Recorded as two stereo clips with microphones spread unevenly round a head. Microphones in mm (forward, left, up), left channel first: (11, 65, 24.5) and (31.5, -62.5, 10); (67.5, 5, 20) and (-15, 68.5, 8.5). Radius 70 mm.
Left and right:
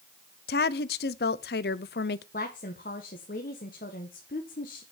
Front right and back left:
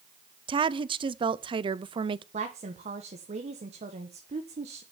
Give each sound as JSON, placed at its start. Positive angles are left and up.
{"t": 0.5, "sound": "a woman speaking", "azimuth_deg": 100, "distance_m": 0.6}
{"t": 2.3, "sound": "a woman speaking", "azimuth_deg": 130, "distance_m": 1.2}